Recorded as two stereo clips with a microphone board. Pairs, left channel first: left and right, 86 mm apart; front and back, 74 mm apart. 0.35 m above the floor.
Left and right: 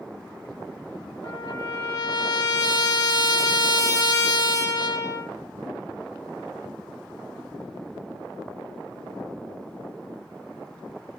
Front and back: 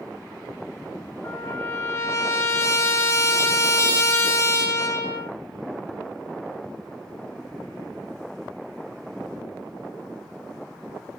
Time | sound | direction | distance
1.2 | a trumpet | 50° left | 0.5 m